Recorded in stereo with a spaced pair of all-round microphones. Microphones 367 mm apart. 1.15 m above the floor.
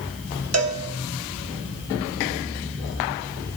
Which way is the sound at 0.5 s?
45° right (ahead or behind).